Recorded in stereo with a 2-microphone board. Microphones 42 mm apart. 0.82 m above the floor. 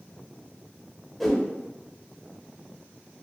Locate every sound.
1.2 s a whoosh: 5° left (ahead or behind), 0.6 m